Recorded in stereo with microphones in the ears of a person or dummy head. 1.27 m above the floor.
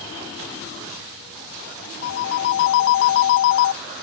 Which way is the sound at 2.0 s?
55° left (ahead or behind).